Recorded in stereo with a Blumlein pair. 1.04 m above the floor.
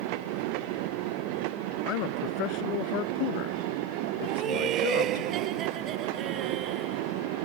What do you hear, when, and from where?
1.8 s a man speaking: 40° left; by 5.2 s 50° left
4.2 s laughter: 30° right